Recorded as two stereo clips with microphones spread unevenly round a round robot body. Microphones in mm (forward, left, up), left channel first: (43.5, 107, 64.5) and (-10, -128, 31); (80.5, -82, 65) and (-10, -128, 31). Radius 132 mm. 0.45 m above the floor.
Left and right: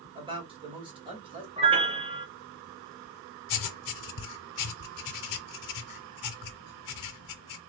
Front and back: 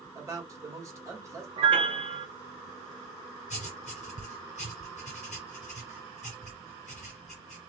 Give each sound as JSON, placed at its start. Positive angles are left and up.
{"t": 0.1, "sound": "a man speaking", "azimuth_deg": -155, "distance_m": 1.6}
{"t": 1.6, "sound": "a piano", "azimuth_deg": -165, "distance_m": 0.9}
{"t": 3.5, "sound": "writing", "azimuth_deg": 75, "distance_m": 0.5}